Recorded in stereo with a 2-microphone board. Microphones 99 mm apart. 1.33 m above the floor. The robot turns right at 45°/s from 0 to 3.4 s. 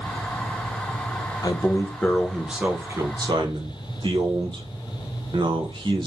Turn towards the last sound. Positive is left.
turn(degrees=-130)